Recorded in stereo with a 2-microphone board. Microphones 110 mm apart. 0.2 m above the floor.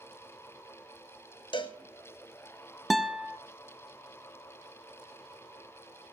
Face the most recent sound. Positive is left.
turn(degrees=0)  # may be behind; listen again after turning